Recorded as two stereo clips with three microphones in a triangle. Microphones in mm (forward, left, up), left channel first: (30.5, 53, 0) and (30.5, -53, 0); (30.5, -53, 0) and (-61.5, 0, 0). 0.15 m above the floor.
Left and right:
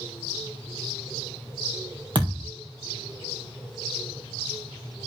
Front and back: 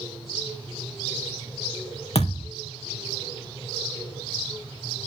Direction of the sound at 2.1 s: 50° right.